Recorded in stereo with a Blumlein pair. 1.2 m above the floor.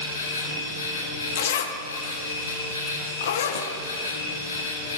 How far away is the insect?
About 1.4 m.